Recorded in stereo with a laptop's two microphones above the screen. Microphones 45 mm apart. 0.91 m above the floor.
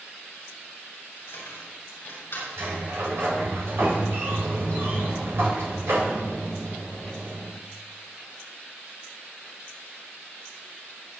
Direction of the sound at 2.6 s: 65° right (ahead or behind).